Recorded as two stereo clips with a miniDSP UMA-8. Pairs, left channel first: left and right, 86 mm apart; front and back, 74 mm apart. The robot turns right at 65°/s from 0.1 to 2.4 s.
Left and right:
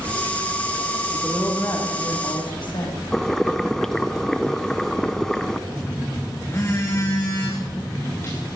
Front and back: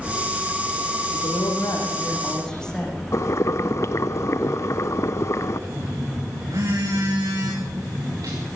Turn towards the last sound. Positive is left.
turn(degrees=150)